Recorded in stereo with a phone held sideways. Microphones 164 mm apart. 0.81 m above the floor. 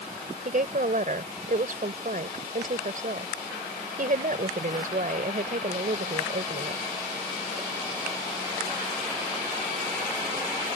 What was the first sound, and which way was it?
A woman speaking, 55° right (ahead or behind).